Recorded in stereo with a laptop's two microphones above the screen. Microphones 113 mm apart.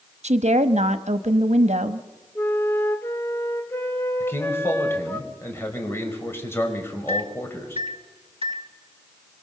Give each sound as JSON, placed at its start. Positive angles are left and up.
{"t": 0.2, "sound": "a woman speaking", "side_deg": -85, "distance_m": 1.1}
{"t": 2.4, "sound": "a flute", "side_deg": 20, "distance_m": 2.0}
{"t": 4.2, "sound": "a man speaking", "side_deg": 20, "distance_m": 5.0}
{"t": 7.1, "sound": "a microwave", "side_deg": -55, "distance_m": 1.5}